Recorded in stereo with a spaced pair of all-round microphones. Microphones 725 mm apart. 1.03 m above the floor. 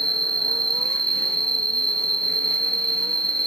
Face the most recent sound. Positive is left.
turn(degrees=-5)  # may be behind; listen again after turning